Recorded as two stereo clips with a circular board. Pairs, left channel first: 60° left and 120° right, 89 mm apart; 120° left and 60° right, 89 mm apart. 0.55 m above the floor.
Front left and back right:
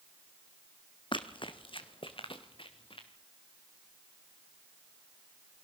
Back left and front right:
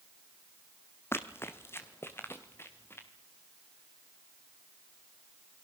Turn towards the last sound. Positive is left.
turn(degrees=55)